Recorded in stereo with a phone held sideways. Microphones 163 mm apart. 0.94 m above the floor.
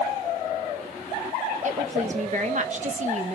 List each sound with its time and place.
1.6 s a woman speaking: 50° right (ahead or behind), 1.1 m